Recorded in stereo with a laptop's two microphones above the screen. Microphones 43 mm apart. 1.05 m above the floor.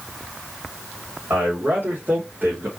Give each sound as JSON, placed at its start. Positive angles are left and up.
{"t": 1.3, "sound": "a man speaking", "side_deg": -60, "distance_m": 2.5}